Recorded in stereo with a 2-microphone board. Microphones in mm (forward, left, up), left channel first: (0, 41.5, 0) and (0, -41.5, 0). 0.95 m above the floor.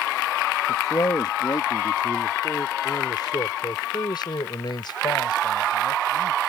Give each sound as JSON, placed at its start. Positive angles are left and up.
{"t": 0.7, "sound": "a man speaking", "side_deg": 45}